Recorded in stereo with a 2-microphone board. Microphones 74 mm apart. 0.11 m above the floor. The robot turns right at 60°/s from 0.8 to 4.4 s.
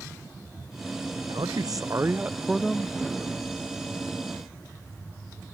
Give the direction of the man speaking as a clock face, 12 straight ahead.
3 o'clock.